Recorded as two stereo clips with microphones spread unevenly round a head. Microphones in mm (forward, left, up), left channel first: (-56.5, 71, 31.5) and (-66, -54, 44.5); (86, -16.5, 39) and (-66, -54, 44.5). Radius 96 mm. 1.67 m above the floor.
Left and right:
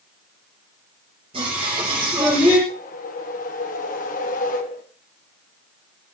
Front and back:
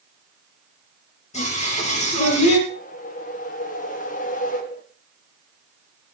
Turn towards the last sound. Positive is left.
turn(degrees=60)